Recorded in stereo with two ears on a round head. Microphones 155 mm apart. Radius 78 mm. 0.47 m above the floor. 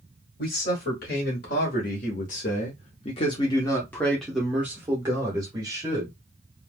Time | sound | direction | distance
0.4 | a man speaking | 55° left (ahead or behind) | 1.9 m